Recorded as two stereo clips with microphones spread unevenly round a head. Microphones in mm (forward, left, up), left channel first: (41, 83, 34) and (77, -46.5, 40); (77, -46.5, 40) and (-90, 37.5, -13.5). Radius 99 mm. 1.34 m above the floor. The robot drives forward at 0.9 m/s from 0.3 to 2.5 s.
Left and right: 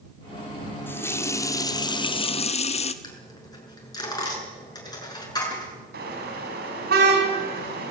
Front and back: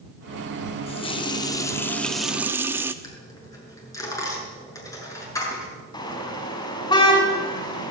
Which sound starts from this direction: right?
A car horn, at 5.9 s.